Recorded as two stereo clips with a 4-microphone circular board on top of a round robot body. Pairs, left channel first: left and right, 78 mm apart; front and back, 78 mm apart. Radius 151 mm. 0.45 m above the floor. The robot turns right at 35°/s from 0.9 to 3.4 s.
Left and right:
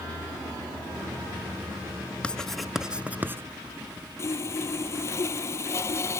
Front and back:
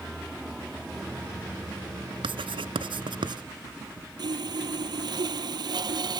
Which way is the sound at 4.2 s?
145° left.